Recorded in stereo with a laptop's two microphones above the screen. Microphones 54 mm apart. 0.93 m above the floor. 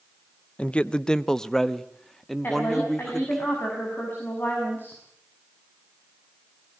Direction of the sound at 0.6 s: 25° left (ahead or behind).